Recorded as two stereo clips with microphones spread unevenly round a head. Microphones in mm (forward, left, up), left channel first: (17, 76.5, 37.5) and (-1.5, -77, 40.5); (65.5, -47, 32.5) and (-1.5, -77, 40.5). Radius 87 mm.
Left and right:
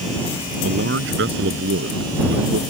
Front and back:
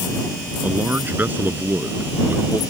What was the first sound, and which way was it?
A man speaking, 95° right.